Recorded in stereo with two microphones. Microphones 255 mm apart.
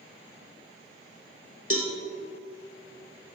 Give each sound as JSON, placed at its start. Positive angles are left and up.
{"t": 1.7, "sound": "a cowbell", "side_deg": 60, "distance_m": 1.7}